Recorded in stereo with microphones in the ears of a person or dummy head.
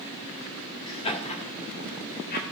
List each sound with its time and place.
0.9 s laughter: 20° left (ahead or behind), 1.9 m; by 2.4 s 45° left (ahead or behind), 3 m